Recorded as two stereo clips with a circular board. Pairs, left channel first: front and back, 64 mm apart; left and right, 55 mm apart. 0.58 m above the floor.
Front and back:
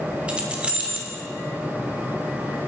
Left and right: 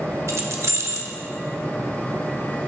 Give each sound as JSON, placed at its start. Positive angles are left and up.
{"t": 0.3, "sound": "keys jangling", "azimuth_deg": -110, "distance_m": 0.8}